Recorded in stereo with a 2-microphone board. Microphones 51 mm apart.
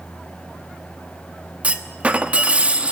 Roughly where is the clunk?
Right.